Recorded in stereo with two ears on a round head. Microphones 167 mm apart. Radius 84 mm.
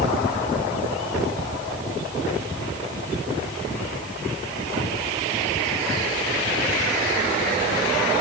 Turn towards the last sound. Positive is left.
No sound to turn to.